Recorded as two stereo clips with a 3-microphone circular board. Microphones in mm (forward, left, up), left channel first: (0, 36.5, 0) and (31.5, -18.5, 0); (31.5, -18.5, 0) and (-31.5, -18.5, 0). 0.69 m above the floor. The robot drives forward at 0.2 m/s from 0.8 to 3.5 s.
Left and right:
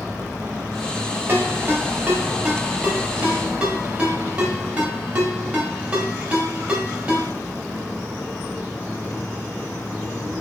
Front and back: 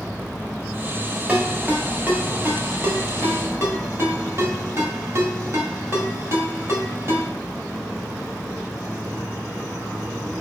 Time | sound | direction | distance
1.3 | a ringtone | 115° right | 1.1 m